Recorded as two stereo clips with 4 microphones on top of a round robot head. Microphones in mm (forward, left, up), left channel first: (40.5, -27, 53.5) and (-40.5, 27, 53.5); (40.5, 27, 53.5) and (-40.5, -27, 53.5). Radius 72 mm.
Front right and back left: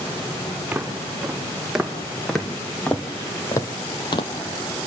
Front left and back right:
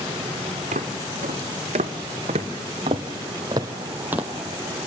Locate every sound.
0.7 s footsteps: 135° right, 3 m; by 4.3 s 70° right, 1.5 m